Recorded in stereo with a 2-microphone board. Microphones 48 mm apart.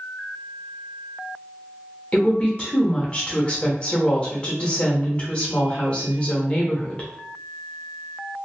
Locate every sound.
2.1 s a woman speaking: 25° left (ahead or behind), 0.9 m